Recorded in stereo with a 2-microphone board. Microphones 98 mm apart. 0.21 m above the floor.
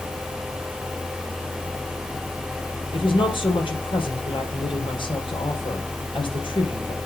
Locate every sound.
2.9 s a woman speaking: 60° left (ahead or behind), 5.5 m